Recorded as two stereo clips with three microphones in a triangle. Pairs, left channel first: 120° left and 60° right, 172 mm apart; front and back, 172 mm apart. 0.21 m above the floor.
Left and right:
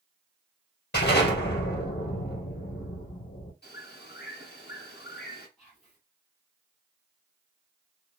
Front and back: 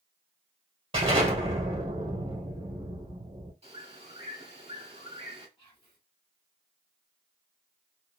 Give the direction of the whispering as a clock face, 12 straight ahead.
11 o'clock.